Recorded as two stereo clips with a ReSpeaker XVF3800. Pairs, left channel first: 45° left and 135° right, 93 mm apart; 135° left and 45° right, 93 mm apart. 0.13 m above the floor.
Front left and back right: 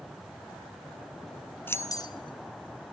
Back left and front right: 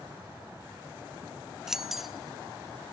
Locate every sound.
1.7 s keys jangling: 30° left, 0.7 m; by 2.9 s 50° left, 1.8 m